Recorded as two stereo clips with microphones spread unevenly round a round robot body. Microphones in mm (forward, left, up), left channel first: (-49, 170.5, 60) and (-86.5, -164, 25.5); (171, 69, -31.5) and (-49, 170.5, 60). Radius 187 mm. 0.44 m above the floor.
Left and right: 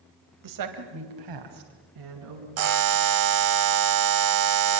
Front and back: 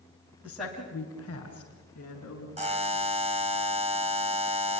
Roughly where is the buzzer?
Behind right.